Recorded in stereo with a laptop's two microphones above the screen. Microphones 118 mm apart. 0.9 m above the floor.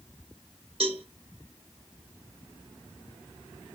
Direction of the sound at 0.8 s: 55° right (ahead or behind).